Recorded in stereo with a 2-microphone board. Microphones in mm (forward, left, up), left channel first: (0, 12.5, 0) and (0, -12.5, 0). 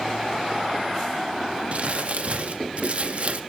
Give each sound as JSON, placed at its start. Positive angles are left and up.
{"t": 1.7, "sound": "crumpling", "side_deg": -60, "distance_m": 0.5}